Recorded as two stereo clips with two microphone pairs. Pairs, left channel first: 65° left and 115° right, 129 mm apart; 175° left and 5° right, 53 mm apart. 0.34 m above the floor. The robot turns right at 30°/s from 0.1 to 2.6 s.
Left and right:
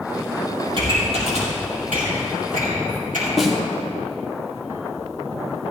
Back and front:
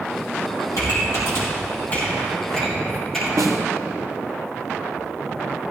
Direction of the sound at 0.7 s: 165° right.